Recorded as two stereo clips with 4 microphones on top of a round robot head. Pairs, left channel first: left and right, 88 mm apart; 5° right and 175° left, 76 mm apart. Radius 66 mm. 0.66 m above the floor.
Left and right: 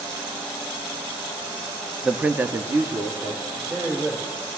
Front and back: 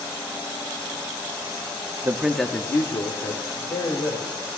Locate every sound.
2.0 s a man speaking: 170° right, 0.6 m; by 4.4 s 25° right, 2.5 m